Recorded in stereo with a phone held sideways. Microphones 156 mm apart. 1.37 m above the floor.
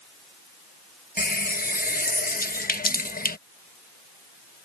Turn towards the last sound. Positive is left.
turn(degrees=70)  # may be behind; listen again after turning